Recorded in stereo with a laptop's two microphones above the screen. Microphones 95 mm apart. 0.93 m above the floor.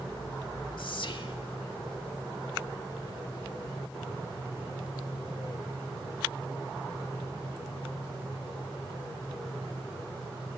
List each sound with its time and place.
0.8 s whispering: 60° left (ahead or behind), 1.8 m